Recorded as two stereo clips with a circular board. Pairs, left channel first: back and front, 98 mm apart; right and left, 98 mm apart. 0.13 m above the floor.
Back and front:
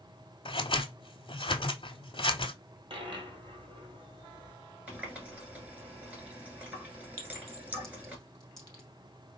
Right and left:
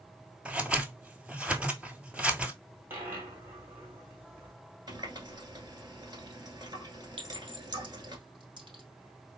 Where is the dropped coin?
25° left, 1.4 m.